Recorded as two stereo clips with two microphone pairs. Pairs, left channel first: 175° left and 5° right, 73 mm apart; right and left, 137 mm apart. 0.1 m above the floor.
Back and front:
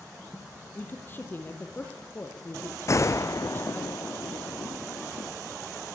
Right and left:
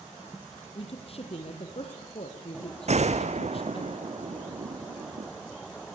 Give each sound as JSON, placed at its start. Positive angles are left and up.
{"t": 0.8, "sound": "a woman speaking", "azimuth_deg": -125, "distance_m": 3.5}
{"t": 2.9, "sound": "a gunshot", "azimuth_deg": 125, "distance_m": 1.4}